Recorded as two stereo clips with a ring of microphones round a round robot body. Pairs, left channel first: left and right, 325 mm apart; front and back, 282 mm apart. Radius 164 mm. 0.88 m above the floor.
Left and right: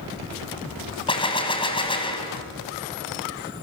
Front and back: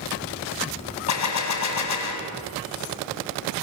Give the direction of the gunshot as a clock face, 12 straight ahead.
11 o'clock.